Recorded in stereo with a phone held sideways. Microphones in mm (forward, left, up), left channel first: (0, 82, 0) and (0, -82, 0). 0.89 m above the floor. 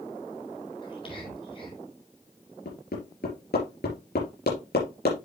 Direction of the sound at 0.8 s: 35° left (ahead or behind).